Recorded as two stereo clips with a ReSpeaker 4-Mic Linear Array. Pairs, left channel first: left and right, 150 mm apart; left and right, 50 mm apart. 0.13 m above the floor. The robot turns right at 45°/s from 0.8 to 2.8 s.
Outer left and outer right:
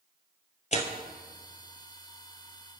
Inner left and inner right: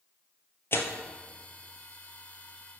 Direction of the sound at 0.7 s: 50° left (ahead or behind).